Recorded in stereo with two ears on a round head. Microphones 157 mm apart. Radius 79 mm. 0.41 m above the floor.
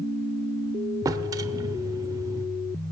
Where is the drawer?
20° right (ahead or behind), 0.6 m.